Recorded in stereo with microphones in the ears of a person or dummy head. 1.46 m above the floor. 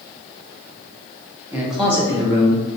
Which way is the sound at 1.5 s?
15° right (ahead or behind).